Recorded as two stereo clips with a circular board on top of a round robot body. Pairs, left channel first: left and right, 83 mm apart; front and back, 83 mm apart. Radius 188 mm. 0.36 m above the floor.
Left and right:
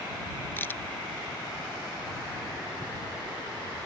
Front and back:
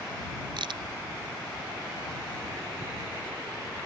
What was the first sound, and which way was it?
A crack, 155° left.